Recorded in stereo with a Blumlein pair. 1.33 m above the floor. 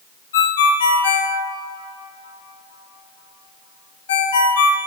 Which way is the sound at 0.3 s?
60° left.